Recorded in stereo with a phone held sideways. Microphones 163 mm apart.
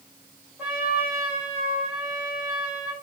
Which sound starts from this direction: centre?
A trumpet, at 0.6 s.